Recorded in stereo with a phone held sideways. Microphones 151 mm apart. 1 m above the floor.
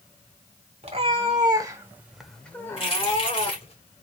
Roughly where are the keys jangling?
Left.